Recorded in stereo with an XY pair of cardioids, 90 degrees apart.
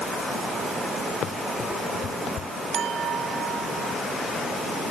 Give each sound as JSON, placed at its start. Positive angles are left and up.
{"t": 1.2, "sound": "running footsteps", "azimuth_deg": 65}
{"t": 2.7, "sound": "a clink", "azimuth_deg": -70}